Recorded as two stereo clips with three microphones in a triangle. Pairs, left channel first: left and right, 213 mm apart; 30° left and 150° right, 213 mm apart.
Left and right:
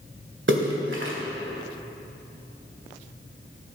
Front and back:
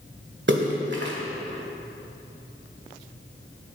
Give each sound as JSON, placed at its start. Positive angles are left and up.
{"t": 0.5, "sound": "a splash", "azimuth_deg": -115, "distance_m": 1.6}